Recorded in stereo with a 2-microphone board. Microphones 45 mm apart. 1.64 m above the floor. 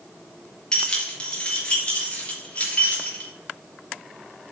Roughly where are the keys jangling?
Left.